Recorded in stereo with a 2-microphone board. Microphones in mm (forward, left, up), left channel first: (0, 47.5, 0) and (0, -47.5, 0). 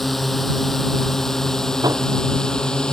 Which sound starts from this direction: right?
Hammering, at 1.8 s.